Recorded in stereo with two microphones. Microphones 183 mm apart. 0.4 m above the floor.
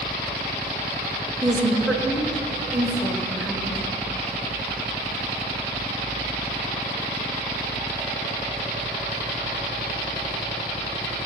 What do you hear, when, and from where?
1.4 s a woman speaking: 5° right (ahead or behind), 2.0 m